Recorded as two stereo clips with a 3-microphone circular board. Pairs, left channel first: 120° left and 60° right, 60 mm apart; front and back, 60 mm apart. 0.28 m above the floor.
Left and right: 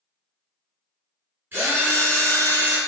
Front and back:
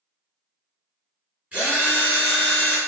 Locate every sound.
1.5 s a drill: 110° right, 1.3 m